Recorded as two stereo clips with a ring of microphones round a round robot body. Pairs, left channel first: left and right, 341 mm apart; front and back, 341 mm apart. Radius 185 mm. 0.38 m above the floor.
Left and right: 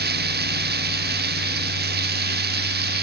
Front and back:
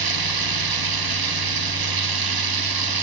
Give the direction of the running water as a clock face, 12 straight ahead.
5 o'clock.